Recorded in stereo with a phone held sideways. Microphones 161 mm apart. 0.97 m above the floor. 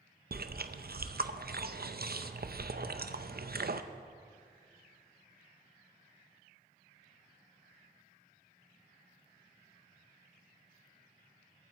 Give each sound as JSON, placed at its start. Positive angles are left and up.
{"t": 0.3, "sound": "chewing", "side_deg": -70, "distance_m": 0.5}